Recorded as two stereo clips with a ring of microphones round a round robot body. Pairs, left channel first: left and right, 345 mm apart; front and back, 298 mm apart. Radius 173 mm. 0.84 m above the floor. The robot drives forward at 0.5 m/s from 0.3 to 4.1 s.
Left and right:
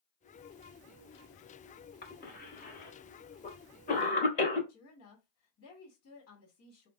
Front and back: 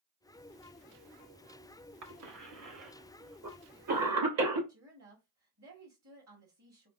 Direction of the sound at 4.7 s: 140° left.